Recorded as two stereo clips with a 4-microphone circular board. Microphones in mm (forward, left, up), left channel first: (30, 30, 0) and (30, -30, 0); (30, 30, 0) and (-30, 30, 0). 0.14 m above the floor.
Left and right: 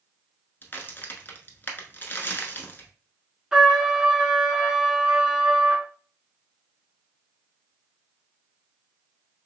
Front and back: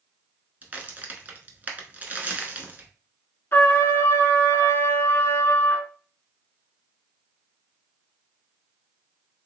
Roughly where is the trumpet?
Ahead.